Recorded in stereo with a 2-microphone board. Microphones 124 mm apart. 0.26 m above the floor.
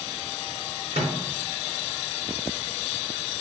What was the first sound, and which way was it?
A microwave, 55° right (ahead or behind).